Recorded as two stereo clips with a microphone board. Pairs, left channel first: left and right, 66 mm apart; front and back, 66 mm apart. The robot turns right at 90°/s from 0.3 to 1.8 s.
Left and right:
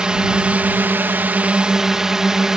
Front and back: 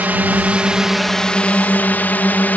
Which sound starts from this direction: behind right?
A drone, at 0.0 s.